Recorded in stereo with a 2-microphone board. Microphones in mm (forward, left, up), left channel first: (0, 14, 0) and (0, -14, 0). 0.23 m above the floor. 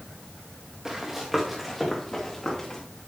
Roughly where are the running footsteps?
Centre.